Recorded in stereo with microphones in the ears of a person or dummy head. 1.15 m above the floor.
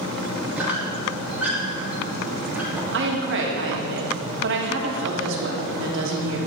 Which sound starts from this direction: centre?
A squeak, at 0.6 s.